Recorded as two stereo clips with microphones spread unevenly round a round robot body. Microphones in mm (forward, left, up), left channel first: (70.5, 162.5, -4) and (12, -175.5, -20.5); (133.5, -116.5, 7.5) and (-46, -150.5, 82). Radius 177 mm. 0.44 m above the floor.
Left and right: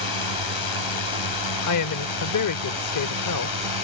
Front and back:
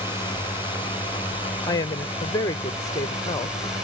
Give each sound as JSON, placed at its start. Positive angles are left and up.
{"t": 0.0, "sound": "a drone", "azimuth_deg": 100}
{"t": 1.6, "sound": "a woman speaking", "azimuth_deg": 55}